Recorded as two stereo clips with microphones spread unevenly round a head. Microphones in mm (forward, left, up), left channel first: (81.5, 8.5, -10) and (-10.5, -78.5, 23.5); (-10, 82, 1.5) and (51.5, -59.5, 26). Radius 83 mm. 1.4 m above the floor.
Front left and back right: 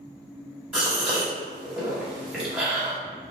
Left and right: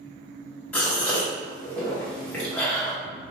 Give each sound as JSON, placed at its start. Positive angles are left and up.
{"t": 0.7, "sound": "a gasp", "azimuth_deg": -150, "distance_m": 0.9}